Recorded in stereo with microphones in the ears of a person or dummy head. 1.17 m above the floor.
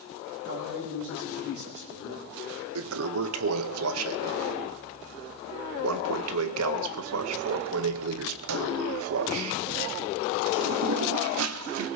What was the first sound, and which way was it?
A man speaking, 55° right (ahead or behind).